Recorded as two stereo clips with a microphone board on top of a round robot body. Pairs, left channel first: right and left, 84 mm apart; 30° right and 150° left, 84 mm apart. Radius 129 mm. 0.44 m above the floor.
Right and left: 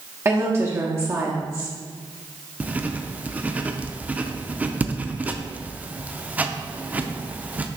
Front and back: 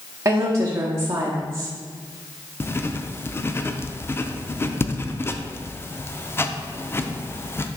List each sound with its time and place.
0.2 s a woman speaking: 120° left, 1.2 m
2.6 s writing: 25° left, 0.6 m